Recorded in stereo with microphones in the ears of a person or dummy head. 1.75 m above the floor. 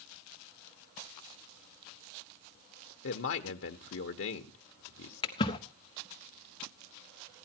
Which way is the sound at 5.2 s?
30° left (ahead or behind).